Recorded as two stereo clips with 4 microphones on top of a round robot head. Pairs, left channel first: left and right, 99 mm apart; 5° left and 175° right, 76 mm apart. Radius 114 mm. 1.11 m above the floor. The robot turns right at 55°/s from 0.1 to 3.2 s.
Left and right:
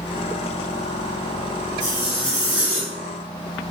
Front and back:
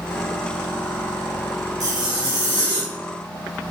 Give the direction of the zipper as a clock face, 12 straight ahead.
7 o'clock.